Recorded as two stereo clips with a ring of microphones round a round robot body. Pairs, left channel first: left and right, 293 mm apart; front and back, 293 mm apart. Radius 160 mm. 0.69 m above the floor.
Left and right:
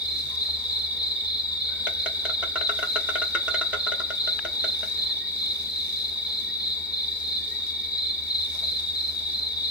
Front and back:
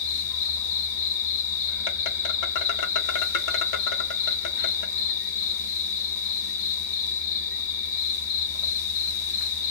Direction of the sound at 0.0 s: 5° right.